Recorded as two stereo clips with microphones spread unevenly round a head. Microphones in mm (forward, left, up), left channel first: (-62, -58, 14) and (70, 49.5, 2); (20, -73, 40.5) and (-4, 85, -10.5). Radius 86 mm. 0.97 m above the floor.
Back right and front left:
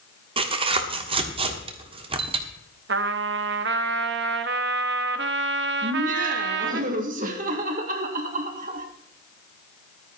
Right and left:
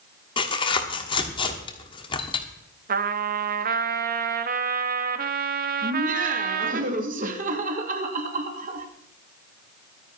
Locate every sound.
0.4 s tearing paper: 20° right, 1.4 m
2.9 s a trumpet: 65° left, 1.0 m
5.8 s laughter: 80° left, 2.0 m